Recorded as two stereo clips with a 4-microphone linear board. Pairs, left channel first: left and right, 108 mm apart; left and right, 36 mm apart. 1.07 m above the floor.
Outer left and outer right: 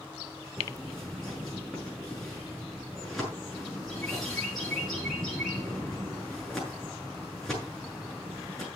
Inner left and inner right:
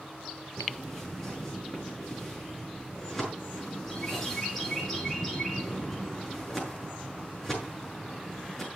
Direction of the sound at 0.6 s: Centre (ahead or behind).